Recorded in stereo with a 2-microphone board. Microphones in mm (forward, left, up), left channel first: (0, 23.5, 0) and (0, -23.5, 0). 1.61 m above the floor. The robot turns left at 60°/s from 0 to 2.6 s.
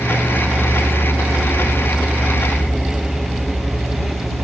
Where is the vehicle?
20° right (ahead or behind); by 4.5 s 5° left (ahead or behind).